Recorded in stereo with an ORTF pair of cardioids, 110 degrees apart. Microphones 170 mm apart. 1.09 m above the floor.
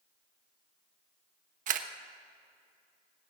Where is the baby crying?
I don't hear a baby crying.